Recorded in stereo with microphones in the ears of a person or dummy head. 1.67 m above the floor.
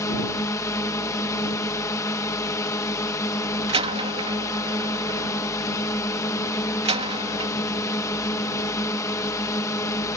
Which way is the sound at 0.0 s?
15° left (ahead or behind).